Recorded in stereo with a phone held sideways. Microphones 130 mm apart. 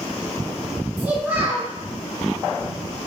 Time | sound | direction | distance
1.0 | a child speaking | 10° right (ahead or behind) | 0.9 m